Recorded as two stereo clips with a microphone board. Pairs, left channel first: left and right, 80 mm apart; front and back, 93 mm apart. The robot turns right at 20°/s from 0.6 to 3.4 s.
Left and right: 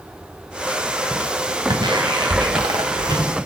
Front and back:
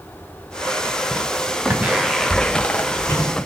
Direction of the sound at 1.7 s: 115° right.